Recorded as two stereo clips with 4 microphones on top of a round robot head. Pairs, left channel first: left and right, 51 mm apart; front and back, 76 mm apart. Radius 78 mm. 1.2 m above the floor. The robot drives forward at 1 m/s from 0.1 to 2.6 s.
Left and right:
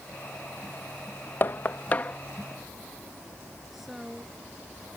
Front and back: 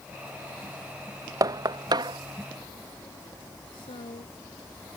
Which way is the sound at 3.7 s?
5° right.